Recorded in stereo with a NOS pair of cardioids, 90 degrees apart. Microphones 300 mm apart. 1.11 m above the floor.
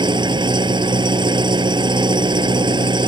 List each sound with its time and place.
0.0 s an engine running: 15° right